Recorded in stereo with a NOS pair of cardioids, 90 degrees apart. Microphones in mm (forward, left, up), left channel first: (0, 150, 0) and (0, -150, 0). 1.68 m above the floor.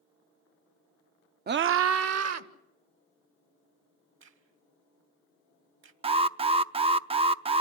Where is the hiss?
No hiss in this recording.